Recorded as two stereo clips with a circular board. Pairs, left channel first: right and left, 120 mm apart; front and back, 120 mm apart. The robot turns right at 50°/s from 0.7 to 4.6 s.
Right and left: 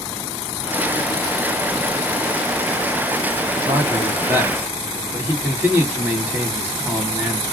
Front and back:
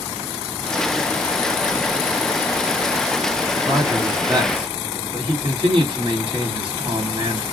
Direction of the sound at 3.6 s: 110° left.